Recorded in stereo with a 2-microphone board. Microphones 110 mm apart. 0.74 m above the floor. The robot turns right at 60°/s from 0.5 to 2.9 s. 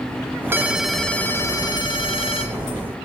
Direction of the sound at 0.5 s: 25° right.